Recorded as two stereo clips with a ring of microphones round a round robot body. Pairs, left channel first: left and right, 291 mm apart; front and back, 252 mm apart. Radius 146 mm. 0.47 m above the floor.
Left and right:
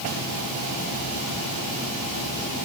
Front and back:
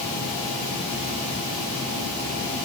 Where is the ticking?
No ticking in this recording.